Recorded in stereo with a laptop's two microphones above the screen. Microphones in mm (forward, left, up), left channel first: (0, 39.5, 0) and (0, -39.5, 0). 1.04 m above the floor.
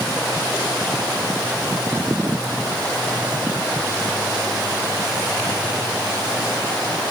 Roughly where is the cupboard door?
I don't hear a cupboard door.